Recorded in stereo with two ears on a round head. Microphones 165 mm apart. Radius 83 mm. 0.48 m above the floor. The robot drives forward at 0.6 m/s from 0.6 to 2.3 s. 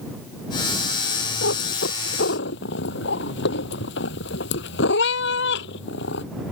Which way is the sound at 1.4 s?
75° left (ahead or behind).